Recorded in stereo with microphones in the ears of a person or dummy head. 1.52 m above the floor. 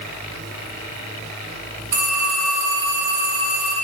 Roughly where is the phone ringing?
Right.